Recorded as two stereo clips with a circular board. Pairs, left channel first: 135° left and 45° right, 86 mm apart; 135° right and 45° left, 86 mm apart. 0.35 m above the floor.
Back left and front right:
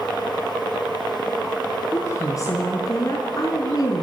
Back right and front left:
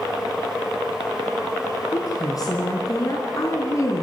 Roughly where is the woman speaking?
Behind.